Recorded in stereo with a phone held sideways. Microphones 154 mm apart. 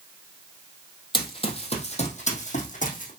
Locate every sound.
1.1 s running footsteps: 30° left (ahead or behind), 1.9 m; by 3.1 s 60° left (ahead or behind), 2.5 m